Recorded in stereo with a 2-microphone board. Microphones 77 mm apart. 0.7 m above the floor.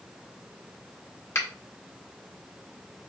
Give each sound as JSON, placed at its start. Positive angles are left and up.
{"t": 1.4, "sound": "a finger snap", "side_deg": 40, "distance_m": 1.7}